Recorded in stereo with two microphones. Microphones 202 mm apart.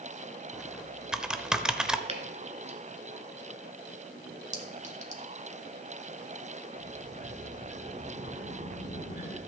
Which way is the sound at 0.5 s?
5° right (ahead or behind).